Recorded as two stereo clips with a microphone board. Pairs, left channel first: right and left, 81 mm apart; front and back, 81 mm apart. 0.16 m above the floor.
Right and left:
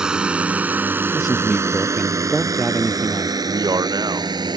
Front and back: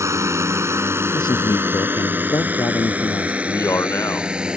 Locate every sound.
0.0 s a drone: 165° left; by 4.6 s 100° left
1.1 s a man speaking: straight ahead
3.4 s a man speaking: 55° left